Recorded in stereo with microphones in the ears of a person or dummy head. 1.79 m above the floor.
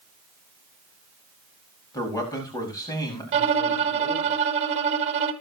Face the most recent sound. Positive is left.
turn(degrees=-30)  # may be behind; listen again after turning